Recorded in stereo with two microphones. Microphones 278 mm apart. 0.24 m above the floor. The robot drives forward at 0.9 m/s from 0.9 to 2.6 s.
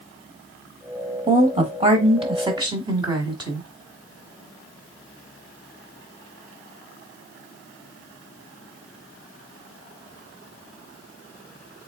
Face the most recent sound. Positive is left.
turn(degrees=-15)  # may be behind; listen again after turning